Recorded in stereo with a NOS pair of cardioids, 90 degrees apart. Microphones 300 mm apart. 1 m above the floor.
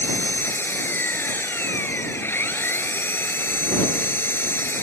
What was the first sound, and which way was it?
An engine running, 5° left.